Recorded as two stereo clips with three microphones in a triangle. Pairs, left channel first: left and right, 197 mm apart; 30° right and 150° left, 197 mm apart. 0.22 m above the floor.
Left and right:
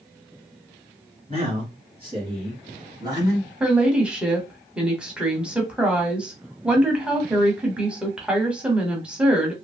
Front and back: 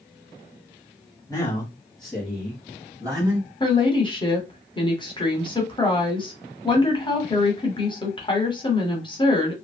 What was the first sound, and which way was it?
A man speaking, 90° right.